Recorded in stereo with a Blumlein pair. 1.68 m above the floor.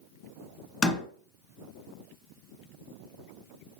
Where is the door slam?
20° left, 2.0 m.